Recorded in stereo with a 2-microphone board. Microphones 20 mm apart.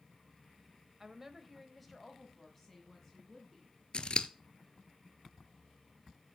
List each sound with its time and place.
1.0 s a woman speaking: 20° right (ahead or behind), 0.9 m; by 3.8 s 25° left (ahead or behind), 3 m
3.9 s scissors: 50° left (ahead or behind), 0.8 m